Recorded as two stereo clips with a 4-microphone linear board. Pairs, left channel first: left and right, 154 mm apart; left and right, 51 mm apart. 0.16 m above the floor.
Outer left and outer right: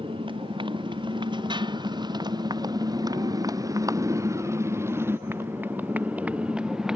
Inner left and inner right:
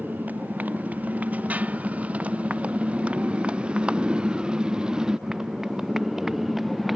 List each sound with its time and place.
0.0 s a motorcycle: 35° right (ahead or behind); by 7.0 s 5° right (ahead or behind)